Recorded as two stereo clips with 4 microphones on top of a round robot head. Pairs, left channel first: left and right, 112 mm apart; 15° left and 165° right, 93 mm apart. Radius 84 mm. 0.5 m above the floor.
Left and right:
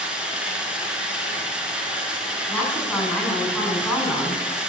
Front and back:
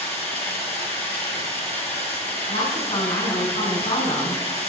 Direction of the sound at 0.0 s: 10° right.